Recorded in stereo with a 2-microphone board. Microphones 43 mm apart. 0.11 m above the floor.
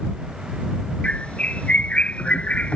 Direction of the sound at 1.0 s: 30° left (ahead or behind).